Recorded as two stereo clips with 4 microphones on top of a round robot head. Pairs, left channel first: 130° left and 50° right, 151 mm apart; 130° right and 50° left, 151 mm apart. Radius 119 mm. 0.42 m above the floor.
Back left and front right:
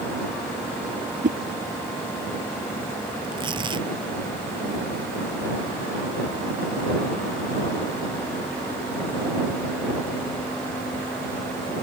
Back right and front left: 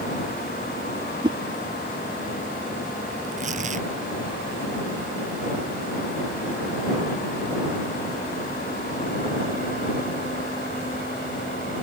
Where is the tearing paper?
10° left.